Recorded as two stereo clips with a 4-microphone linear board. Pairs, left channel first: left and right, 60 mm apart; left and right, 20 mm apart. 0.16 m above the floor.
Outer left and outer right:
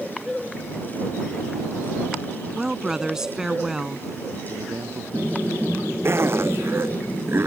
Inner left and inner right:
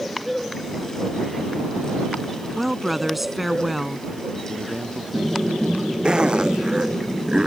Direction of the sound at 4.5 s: 65° right (ahead or behind).